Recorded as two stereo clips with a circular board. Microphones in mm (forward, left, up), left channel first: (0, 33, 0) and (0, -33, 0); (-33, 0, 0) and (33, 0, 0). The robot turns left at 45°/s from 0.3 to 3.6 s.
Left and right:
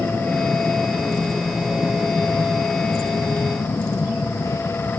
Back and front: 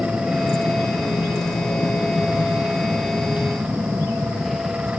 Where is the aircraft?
120° right; by 5.0 s 95° left.